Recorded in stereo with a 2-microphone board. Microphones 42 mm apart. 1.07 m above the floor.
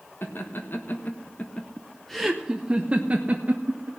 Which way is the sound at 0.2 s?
65° left (ahead or behind).